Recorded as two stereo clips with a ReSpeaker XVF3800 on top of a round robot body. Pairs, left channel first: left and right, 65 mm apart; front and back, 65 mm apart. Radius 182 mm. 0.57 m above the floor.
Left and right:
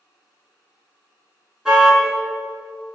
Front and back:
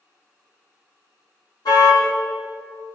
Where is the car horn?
10° right, 5 m.